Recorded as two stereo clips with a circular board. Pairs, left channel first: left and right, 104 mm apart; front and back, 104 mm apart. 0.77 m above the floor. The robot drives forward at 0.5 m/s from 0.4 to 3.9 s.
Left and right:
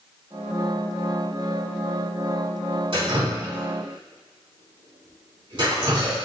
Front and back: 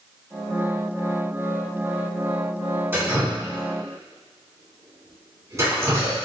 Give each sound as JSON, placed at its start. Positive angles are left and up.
{"t": 2.9, "sound": "dripping", "azimuth_deg": -110, "distance_m": 2.5}